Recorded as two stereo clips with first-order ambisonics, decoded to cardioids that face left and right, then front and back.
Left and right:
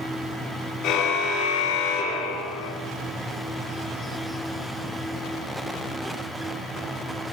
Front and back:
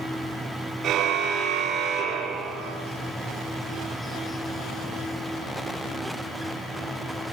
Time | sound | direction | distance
0.8 | a car horn | 125° left | 5 m